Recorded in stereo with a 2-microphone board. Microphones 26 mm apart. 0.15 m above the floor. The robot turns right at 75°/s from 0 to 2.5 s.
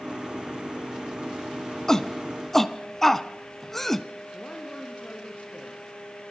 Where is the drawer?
I don't hear a drawer.